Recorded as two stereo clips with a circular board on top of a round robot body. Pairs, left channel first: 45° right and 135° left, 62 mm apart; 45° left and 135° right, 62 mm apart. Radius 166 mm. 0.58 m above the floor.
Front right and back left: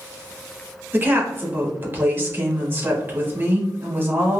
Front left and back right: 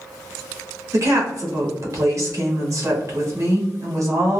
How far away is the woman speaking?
About 1.6 m.